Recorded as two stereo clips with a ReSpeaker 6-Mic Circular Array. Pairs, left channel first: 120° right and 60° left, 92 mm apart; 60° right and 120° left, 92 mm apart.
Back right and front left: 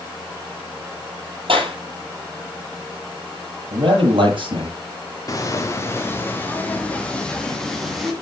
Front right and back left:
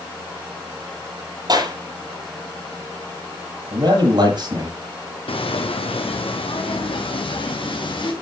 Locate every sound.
1.5 s a clap: 80° left, 7.5 m
3.7 s a man speaking: 85° left, 7.5 m
5.3 s footsteps: 70° right, 2 m; by 8.1 s 30° right, 3.5 m